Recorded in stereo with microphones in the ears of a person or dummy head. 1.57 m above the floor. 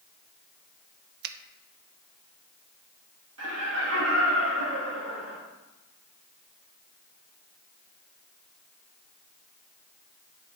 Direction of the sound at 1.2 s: 65° right (ahead or behind).